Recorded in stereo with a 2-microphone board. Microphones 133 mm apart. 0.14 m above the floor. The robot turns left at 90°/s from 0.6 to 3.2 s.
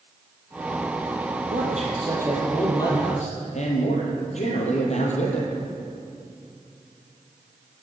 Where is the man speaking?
90° right, 4 m; by 5.5 s 115° left, 4 m.